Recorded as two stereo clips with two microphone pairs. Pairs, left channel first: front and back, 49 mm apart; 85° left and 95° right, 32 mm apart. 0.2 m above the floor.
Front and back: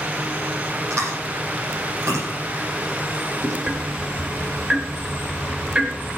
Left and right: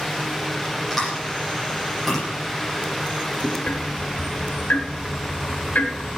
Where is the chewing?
175° left, 8 m.